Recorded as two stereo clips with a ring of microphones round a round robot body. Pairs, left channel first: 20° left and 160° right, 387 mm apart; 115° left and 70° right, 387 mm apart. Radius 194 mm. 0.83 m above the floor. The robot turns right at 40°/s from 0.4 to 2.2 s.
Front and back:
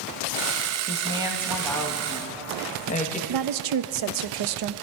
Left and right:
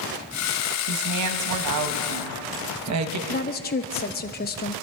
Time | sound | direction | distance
0.9 | a woman speaking | 95° right | 1.1 m
3.3 | a woman speaking | 175° left | 0.6 m